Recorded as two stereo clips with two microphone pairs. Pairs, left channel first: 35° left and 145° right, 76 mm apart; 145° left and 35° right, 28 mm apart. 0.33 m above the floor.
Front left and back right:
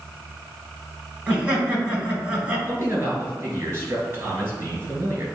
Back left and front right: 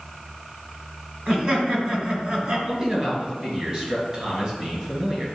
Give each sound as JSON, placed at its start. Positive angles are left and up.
{"t": 1.3, "sound": "laughter", "azimuth_deg": -75, "distance_m": 2.0}
{"t": 2.7, "sound": "a man speaking", "azimuth_deg": -90, "distance_m": 3.0}